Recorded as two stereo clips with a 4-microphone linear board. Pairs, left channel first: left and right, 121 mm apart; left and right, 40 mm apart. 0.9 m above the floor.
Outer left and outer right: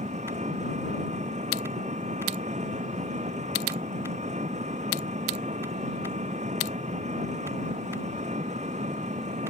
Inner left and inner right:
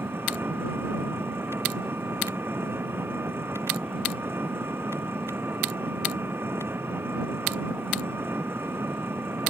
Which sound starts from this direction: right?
An engine running, at 0.0 s.